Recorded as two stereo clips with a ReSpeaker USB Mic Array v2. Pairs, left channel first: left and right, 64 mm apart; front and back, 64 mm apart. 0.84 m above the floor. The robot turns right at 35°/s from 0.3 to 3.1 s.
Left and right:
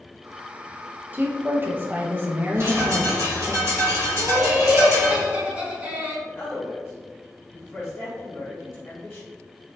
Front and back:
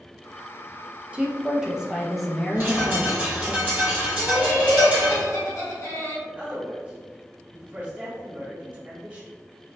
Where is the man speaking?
120° left, 1.2 m.